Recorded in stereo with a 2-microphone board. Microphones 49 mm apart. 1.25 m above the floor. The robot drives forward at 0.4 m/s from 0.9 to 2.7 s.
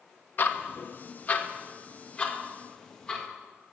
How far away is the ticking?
About 0.7 m.